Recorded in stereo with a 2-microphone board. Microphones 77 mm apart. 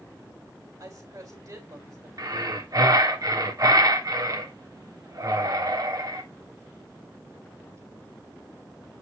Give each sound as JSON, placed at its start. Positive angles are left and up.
{"t": 0.8, "sound": "a woman speaking", "side_deg": -50, "distance_m": 3.5}
{"t": 2.2, "sound": "breathing", "side_deg": -55, "distance_m": 1.5}